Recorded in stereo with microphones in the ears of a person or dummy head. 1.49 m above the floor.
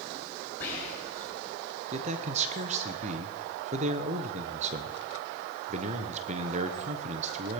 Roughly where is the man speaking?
Right.